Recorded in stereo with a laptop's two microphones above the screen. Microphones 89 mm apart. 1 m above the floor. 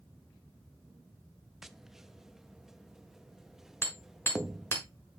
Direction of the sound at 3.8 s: 30° left (ahead or behind).